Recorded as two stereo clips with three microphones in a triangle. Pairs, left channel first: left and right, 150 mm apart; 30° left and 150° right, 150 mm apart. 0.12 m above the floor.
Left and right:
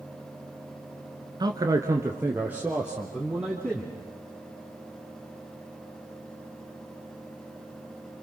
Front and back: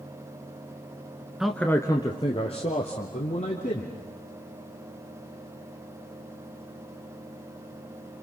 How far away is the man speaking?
About 1.3 m.